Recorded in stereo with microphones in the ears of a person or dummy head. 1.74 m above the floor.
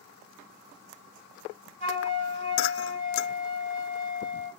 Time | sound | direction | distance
1.8 | a flute | 50° right (ahead or behind) | 2.5 m